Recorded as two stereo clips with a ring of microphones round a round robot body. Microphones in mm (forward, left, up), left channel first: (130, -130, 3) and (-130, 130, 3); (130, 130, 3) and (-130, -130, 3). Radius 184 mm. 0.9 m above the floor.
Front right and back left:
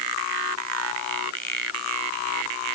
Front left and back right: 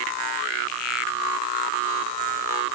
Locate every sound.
Only background noise.